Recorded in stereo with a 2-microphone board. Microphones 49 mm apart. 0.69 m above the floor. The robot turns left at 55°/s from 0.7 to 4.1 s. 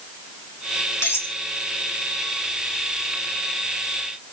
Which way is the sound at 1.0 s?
60° left (ahead or behind).